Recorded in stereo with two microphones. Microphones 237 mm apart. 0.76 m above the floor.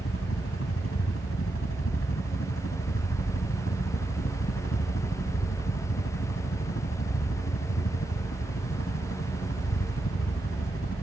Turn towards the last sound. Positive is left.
turn(degrees=70)  # may be behind; listen again after turning